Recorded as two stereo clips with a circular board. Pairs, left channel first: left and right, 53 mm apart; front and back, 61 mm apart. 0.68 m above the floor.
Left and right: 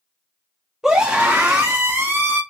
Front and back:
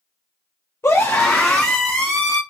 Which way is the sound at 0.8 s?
15° right.